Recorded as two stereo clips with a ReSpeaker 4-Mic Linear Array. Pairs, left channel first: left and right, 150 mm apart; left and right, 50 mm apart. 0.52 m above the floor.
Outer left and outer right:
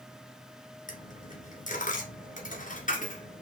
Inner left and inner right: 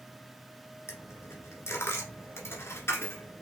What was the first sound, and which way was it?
A dropped coin, 60° left (ahead or behind).